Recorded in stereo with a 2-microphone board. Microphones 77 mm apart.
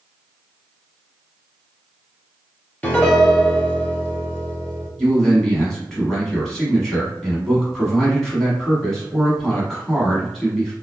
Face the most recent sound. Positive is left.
turn(degrees=5)  # may be behind; listen again after turning